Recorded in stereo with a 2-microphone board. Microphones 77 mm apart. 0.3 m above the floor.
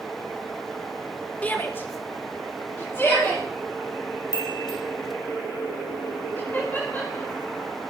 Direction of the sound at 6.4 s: 25° left (ahead or behind).